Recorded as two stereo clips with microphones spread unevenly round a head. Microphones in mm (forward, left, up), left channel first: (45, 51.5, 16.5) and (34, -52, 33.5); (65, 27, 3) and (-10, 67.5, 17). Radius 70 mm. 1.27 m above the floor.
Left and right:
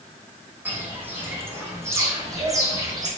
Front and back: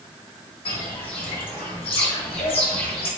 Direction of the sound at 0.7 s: 30° right.